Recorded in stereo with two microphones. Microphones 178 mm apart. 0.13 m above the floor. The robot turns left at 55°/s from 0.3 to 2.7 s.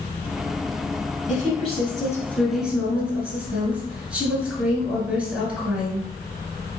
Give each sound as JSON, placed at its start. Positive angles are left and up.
{"t": 1.3, "sound": "a woman speaking", "azimuth_deg": 70, "distance_m": 1.3}